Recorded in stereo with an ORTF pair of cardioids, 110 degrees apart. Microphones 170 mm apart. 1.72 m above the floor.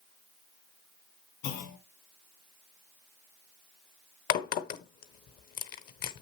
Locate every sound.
1.4 s a clunk: 70° left, 1.6 m
4.3 s a crack: 60° left, 0.8 m